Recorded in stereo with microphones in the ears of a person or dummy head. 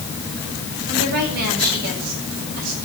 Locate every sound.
0.9 s a woman speaking: 55° right (ahead or behind), 9.5 m; by 2.8 s 50° right (ahead or behind), 8 m